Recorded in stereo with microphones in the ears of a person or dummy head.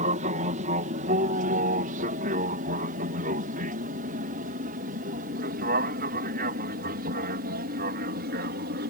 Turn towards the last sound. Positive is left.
turn(degrees=-50)  # may be behind; listen again after turning